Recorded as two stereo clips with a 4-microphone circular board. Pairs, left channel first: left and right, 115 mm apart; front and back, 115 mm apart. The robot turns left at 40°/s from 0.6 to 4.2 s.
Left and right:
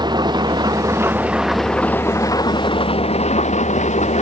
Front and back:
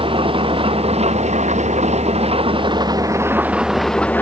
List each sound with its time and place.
0.0 s an engine running: 140° right; by 4.2 s 75° left